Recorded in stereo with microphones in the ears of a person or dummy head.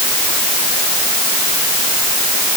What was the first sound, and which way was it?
Only background noise.